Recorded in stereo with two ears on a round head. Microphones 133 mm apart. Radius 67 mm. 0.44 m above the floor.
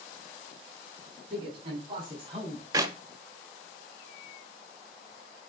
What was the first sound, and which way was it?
A man speaking, 40° right (ahead or behind).